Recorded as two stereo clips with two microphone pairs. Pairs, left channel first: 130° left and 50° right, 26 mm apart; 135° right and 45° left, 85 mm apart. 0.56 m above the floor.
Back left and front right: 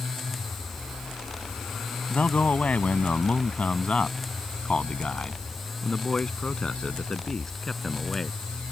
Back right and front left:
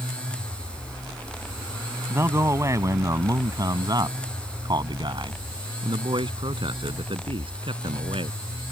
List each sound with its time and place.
2.1 s a man speaking: 105° left; by 8.4 s 55° left